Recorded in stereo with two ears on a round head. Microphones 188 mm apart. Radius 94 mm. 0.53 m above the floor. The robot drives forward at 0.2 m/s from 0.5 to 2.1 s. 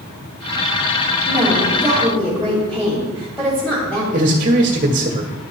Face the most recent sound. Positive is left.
turn(degrees=-40)  # may be behind; listen again after turning